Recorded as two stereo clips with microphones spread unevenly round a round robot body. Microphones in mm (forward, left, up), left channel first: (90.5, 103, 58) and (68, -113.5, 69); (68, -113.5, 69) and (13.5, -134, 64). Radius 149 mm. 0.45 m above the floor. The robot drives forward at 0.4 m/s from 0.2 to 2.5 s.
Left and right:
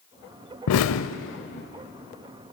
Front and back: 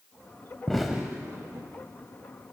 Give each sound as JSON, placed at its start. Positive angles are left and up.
{"t": 0.7, "sound": "an explosion", "azimuth_deg": 105, "distance_m": 0.5}